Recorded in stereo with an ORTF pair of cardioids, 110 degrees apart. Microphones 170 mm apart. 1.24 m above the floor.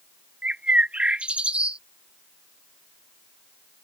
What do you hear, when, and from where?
0.4 s a bird: 5° right